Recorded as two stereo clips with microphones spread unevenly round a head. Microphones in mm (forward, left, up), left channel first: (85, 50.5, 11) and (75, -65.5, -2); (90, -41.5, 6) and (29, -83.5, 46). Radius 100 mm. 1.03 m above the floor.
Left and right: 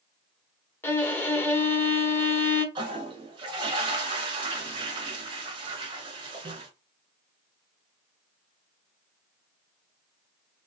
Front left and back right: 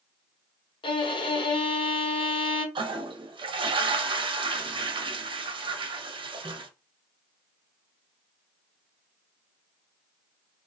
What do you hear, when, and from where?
0.8 s a violin: 20° left, 1.1 m
2.8 s a toilet flushing: 130° right, 0.6 m